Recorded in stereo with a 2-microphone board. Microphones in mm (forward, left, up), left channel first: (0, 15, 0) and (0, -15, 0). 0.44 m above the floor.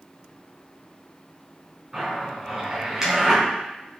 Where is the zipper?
10° right (ahead or behind), 3 m.